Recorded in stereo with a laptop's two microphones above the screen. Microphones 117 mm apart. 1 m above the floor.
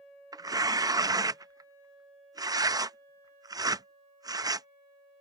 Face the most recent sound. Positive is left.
turn(degrees=-30)  # may be behind; listen again after turning